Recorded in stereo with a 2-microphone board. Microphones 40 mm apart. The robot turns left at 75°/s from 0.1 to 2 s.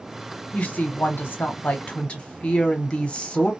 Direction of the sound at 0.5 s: 145° left.